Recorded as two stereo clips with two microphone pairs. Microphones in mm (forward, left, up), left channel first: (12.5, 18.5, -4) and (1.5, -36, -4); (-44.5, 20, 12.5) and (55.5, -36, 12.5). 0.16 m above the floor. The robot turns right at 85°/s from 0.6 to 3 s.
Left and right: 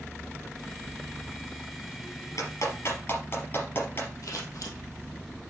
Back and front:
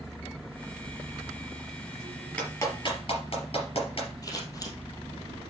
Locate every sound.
2.4 s a clap: 65° left, 3.5 m; by 4.1 s 120° left, 3.5 m
4.2 s scissors: 95° left, 2.5 m